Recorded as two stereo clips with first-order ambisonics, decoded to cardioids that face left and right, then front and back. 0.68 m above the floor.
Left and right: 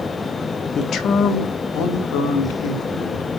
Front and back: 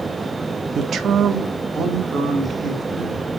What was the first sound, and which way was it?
A man speaking, 135° left.